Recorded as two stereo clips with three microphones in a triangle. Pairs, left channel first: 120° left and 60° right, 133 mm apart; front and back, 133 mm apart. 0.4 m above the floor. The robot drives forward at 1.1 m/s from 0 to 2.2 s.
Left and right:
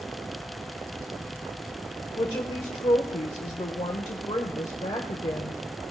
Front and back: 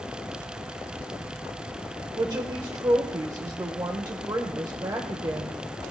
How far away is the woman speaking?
About 1.1 m.